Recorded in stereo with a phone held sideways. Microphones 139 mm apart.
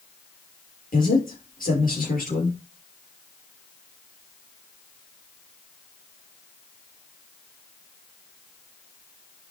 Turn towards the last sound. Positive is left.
turn(degrees=80)